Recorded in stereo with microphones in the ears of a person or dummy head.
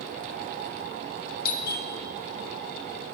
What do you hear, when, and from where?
1.4 s a doorbell: 50° left (ahead or behind), 1.3 m